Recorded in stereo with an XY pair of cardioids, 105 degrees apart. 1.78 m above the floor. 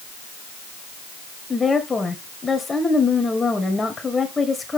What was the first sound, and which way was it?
A woman speaking, 25° left.